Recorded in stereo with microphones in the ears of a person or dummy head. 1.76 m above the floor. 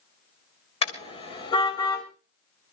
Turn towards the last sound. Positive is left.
turn(degrees=30)  # may be behind; listen again after turning